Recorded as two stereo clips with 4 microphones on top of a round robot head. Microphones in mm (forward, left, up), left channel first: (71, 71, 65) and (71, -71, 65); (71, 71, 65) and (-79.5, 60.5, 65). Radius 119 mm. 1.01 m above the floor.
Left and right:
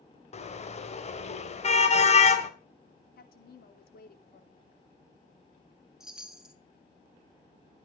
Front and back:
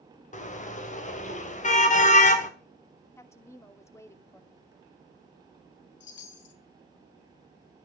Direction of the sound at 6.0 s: 5° right.